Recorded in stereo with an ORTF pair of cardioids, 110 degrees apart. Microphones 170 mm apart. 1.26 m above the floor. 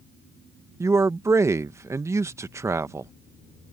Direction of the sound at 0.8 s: 15° right.